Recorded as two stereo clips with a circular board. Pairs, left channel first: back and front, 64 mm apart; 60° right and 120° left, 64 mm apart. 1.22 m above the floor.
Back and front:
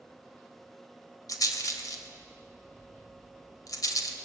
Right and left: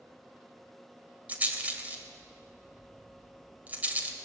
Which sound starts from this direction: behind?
A rattle, at 1.3 s.